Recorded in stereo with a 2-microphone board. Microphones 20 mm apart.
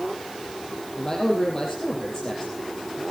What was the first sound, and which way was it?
A man speaking, 25° left (ahead or behind).